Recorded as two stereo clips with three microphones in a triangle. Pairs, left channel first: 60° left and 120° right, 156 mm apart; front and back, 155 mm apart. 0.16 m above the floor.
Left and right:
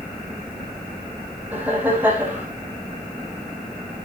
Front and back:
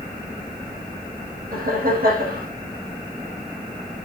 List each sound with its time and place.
1.5 s laughter: 160° left, 8.5 m